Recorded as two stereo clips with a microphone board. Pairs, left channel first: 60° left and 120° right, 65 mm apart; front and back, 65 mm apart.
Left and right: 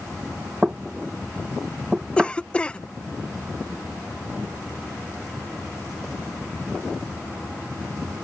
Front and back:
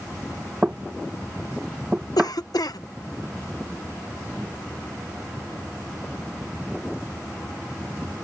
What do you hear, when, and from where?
0.6 s knocking: 155° right
2.2 s a cough: 10° right